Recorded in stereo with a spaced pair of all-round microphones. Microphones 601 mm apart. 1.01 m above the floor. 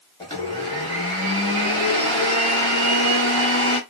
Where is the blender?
10° left (ahead or behind), 1.2 m.